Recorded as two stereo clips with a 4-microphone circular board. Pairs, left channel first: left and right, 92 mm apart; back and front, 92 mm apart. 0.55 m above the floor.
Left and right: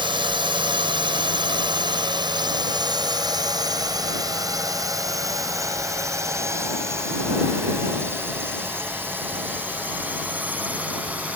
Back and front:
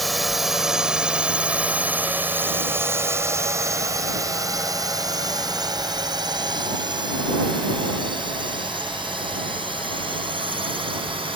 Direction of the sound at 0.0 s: 90° right.